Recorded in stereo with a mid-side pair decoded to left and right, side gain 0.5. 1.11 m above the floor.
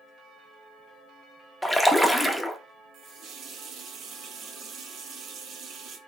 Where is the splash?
5° left, 0.8 m.